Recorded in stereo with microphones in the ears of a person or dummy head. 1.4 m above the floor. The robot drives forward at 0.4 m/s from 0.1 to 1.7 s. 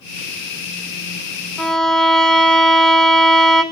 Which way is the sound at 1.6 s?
5° right (ahead or behind).